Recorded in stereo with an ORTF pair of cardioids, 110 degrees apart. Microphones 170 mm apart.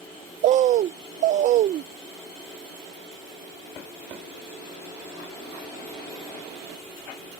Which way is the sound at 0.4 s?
45° right.